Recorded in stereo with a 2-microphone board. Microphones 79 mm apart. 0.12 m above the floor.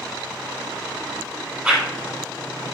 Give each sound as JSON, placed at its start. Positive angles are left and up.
{"t": 1.6, "sound": "a whoosh", "side_deg": -15, "distance_m": 1.0}